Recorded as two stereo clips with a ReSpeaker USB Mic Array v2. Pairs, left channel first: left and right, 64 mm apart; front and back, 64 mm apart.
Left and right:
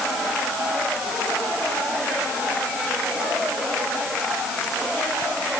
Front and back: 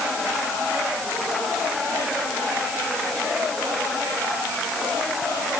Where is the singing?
I don't hear singing.